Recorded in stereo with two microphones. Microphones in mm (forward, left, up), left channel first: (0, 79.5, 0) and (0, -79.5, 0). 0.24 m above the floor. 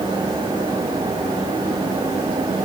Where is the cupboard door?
I don't hear a cupboard door.